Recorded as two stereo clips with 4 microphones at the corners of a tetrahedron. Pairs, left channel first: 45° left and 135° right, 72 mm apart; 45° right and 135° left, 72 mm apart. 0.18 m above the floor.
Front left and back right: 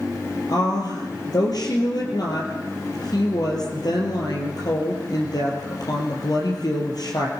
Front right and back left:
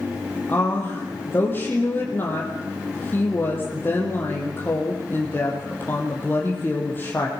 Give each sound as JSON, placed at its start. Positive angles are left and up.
{"t": 0.5, "sound": "a woman speaking", "azimuth_deg": 15, "distance_m": 4.5}